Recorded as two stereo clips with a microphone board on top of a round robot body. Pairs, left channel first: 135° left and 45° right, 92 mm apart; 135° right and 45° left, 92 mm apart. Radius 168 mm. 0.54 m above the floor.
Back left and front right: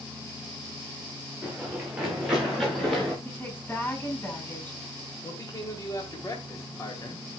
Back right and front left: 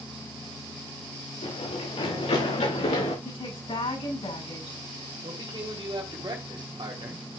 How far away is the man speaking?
About 2.5 m.